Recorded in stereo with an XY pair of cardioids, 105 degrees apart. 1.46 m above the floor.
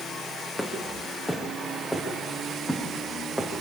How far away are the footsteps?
About 6 m.